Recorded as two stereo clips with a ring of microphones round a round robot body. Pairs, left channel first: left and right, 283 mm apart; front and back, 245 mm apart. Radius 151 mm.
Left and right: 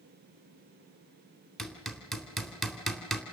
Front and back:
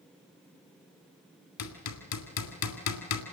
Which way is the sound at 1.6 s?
Straight ahead.